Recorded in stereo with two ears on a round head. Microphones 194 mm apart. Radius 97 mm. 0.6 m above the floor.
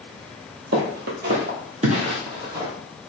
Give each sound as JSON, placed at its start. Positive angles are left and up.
{"t": 0.7, "sound": "footsteps", "side_deg": -55, "distance_m": 0.9}